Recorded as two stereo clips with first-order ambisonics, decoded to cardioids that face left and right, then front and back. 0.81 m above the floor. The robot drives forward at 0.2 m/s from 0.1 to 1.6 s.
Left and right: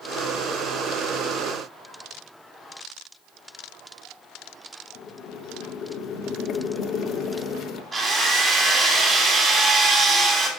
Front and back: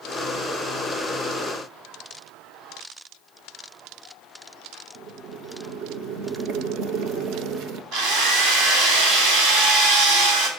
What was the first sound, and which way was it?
Boiling, 140° left.